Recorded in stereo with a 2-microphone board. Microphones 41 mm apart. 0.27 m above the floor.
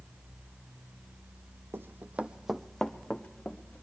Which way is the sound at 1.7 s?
60° right (ahead or behind).